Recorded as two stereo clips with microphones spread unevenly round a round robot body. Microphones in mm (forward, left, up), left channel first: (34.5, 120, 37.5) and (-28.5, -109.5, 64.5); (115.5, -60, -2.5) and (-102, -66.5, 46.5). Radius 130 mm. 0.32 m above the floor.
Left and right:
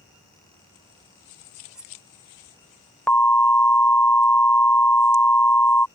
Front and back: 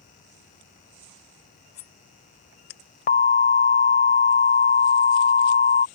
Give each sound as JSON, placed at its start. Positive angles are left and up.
{"t": 1.8, "sound": "cutlery clinking", "azimuth_deg": -20}
{"t": 3.1, "sound": "an alarm", "azimuth_deg": -5}